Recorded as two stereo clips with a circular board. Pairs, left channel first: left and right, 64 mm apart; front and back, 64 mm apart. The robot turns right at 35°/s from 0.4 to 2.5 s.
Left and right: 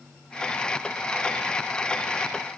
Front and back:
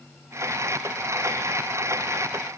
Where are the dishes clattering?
I don't hear dishes clattering.